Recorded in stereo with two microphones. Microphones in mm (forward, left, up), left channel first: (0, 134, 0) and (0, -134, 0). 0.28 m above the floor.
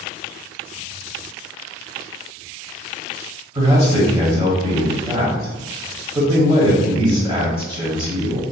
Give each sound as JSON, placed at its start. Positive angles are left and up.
{"t": 3.5, "sound": "a man speaking", "side_deg": -20, "distance_m": 1.2}